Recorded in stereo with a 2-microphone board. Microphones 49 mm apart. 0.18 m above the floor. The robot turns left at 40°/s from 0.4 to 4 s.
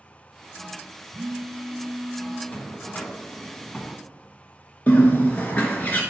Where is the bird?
35° left (ahead or behind), 1.1 m.